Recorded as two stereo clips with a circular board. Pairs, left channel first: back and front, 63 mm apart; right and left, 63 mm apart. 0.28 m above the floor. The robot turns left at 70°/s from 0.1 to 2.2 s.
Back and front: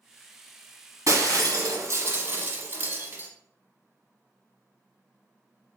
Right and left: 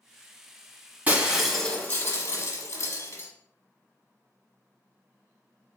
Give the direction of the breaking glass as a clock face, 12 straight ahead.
11 o'clock.